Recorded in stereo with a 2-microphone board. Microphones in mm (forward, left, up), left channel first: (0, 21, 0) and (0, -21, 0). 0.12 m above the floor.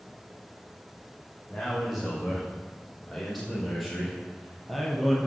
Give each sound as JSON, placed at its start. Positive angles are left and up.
{"t": 1.5, "sound": "a man speaking", "side_deg": 0, "distance_m": 6.5}